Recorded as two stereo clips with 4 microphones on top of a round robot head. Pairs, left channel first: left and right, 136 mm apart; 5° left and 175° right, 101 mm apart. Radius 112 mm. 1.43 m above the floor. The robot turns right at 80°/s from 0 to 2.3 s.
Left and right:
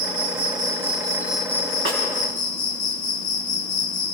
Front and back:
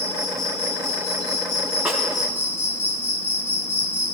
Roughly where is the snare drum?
Right.